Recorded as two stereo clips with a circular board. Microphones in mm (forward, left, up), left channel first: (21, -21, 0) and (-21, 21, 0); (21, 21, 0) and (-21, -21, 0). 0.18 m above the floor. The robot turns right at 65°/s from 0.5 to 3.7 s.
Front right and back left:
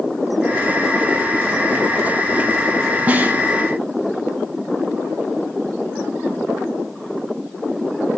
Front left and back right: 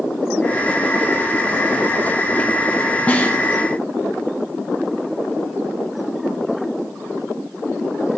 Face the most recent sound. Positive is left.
turn(degrees=135)